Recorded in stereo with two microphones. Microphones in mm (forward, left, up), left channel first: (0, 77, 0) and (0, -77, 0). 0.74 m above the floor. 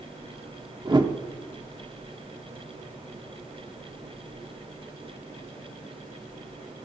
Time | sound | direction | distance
0.8 | a whoosh | 30° right (ahead or behind) | 1.0 m